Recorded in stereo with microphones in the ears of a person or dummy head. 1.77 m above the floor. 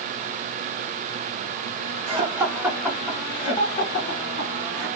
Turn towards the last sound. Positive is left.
turn(degrees=50)  # may be behind; listen again after turning